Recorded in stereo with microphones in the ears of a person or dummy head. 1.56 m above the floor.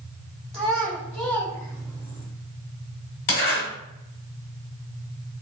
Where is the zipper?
40° left (ahead or behind), 1.5 m.